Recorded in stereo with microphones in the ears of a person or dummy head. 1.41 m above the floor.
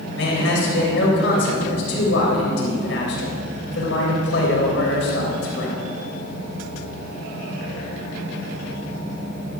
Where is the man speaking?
85° left, 3 m.